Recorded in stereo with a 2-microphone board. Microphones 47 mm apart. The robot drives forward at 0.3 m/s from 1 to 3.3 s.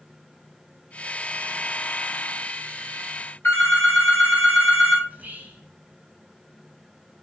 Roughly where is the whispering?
Right.